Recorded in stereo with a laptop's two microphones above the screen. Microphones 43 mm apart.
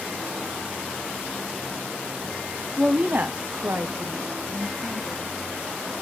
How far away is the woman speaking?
About 0.6 m.